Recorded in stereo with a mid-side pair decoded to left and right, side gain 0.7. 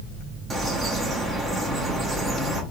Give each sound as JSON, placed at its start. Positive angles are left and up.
{"t": 0.5, "sound": "a bird", "azimuth_deg": -15, "distance_m": 1.2}